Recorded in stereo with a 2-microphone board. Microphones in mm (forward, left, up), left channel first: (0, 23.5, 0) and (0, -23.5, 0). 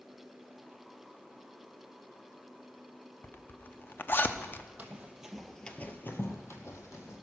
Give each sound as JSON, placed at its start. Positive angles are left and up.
{"t": 3.2, "sound": "a zipper", "side_deg": 40, "distance_m": 0.6}
{"t": 4.8, "sound": "running footsteps", "side_deg": -25, "distance_m": 1.7}